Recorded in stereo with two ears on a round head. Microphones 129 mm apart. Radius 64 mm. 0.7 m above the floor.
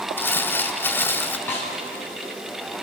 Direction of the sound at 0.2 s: 15° left (ahead or behind).